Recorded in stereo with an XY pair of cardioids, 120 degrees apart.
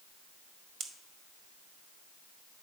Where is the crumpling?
No crumpling in this recording.